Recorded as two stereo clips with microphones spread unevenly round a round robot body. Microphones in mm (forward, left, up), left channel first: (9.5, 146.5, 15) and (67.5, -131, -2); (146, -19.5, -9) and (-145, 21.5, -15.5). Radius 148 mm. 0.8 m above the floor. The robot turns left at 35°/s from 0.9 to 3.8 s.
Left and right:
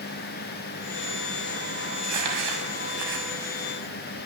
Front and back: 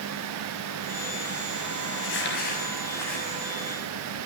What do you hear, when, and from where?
1.9 s crumpling: 50° right, 6.5 m; by 3.3 s 100° right, 6.5 m